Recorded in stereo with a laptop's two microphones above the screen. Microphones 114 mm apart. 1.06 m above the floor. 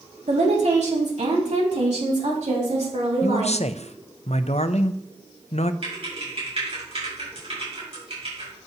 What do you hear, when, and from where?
0.3 s a woman speaking: 75° right (ahead or behind), 2 m; by 3.6 s 85° right, 4 m
3.2 s a man speaking: 70° left (ahead or behind), 0.5 m
5.8 s typing on a keyboard: 60° right (ahead or behind), 5.5 m